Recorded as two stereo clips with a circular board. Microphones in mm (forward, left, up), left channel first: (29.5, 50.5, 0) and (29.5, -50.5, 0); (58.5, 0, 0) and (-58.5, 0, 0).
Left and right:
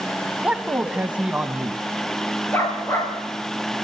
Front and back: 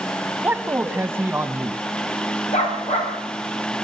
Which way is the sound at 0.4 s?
145° right.